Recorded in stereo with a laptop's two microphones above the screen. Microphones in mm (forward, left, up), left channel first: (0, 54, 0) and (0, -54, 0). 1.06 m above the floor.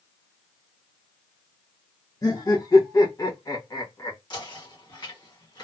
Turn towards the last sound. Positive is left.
turn(degrees=45)  # may be behind; listen again after turning